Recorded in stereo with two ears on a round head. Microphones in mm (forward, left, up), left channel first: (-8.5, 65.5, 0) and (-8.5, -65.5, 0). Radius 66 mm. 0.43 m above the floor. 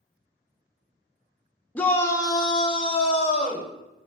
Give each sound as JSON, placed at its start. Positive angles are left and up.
{"t": 1.8, "sound": "a shout", "side_deg": 10, "distance_m": 0.8}